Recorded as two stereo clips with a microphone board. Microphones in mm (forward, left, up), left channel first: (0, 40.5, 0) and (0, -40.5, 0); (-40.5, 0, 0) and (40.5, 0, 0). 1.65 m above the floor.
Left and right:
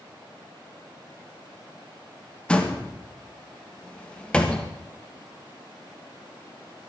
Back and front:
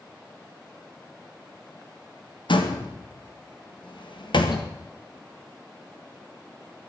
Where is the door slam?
165° left, 1.9 m.